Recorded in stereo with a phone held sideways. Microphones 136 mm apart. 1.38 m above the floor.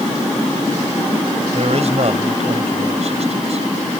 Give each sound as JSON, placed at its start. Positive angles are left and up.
{"t": 1.5, "sound": "a man speaking", "side_deg": -60}